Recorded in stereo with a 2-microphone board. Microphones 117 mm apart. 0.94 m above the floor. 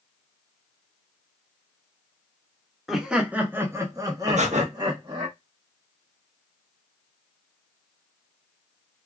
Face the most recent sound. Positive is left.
turn(degrees=-70)  # may be behind; listen again after turning